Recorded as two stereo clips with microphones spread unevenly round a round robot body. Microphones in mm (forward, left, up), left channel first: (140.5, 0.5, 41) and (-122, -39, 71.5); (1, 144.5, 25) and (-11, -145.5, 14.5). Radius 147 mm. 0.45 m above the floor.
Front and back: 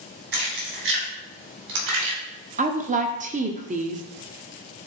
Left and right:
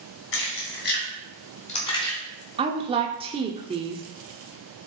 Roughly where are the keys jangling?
Behind left.